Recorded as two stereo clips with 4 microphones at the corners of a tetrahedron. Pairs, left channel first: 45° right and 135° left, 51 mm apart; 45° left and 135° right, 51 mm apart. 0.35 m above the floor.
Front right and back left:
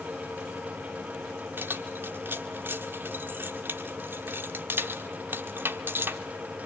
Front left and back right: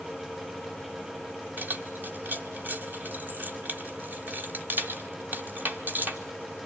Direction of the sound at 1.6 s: Straight behind.